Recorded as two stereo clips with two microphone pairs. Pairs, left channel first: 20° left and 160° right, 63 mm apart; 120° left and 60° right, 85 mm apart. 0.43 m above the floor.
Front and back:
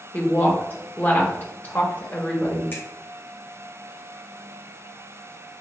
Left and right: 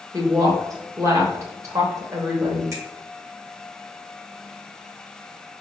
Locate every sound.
0.1 s a woman speaking: 30° right, 1.1 m
2.7 s a finger snap: 20° right, 1.0 m